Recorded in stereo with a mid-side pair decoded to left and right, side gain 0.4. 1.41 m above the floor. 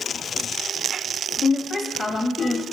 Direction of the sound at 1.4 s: 55° left.